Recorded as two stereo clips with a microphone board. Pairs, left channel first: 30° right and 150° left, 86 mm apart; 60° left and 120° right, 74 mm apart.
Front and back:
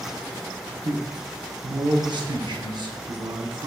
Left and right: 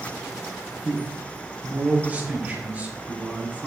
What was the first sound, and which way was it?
A man speaking, 175° left.